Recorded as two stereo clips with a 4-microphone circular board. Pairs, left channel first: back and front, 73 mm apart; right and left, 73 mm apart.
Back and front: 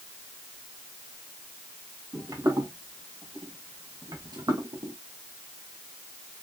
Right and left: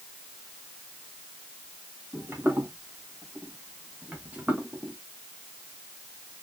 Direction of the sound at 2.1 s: 35° left.